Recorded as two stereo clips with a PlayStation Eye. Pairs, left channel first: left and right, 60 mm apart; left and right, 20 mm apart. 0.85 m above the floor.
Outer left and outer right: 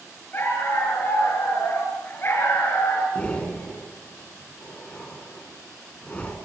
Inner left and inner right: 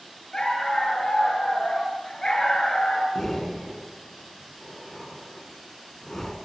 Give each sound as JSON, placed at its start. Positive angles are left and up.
{"t": 0.3, "sound": "a dog barking", "side_deg": 35, "distance_m": 6.5}
{"t": 3.1, "sound": "breathing", "side_deg": 20, "distance_m": 2.5}